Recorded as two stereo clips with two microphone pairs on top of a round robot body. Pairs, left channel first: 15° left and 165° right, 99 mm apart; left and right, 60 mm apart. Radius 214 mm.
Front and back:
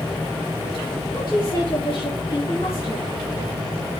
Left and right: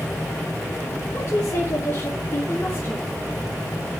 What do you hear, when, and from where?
1.1 s a woman speaking: 40° left, 6.5 m; by 3.1 s 35° left, 4 m